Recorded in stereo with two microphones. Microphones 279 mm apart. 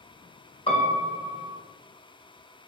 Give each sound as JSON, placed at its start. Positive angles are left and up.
{"t": 0.7, "sound": "a piano", "side_deg": 20, "distance_m": 1.5}